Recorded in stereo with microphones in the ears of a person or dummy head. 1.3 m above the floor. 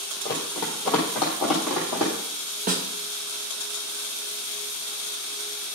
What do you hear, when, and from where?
0.2 s running footsteps: 10° left (ahead or behind), 2 m; by 2.1 s 15° right (ahead or behind), 2.5 m
2.7 s a snare drum: 40° right (ahead or behind), 0.9 m